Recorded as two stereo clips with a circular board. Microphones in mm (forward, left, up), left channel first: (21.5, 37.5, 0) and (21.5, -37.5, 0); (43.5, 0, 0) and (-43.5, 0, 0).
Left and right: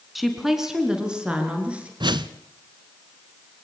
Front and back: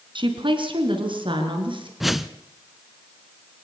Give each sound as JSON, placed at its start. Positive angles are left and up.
{"t": 0.1, "sound": "a woman speaking", "azimuth_deg": 180, "distance_m": 3.5}
{"t": 2.0, "sound": "a whoosh", "azimuth_deg": -90, "distance_m": 0.9}